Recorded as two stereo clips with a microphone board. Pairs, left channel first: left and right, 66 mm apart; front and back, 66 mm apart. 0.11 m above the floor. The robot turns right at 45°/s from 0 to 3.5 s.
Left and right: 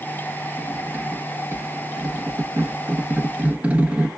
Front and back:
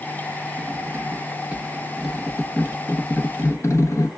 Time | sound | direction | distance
0.6 | cutlery clinking | 160° right | 0.9 m